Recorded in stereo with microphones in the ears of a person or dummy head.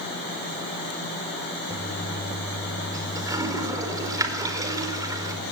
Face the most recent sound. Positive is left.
turn(degrees=-20)  # may be behind; listen again after turning